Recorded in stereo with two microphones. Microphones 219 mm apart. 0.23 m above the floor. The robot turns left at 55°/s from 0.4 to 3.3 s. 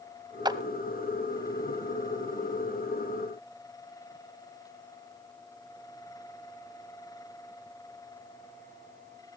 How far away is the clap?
About 0.9 m.